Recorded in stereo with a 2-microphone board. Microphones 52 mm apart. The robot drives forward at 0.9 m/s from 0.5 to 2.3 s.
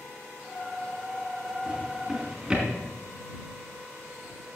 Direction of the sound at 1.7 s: 20° right (ahead or behind).